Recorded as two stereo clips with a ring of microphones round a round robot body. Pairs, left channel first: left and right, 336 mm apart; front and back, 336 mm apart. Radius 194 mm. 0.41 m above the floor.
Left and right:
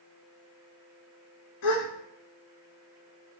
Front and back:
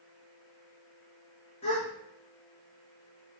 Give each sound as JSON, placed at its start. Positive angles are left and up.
{"t": 1.6, "sound": "a gasp", "azimuth_deg": 75, "distance_m": 0.9}